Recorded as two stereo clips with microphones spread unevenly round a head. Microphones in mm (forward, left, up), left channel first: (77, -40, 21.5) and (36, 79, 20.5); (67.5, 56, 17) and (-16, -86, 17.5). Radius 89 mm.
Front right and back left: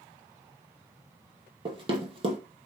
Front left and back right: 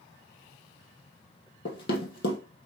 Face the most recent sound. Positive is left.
turn(degrees=70)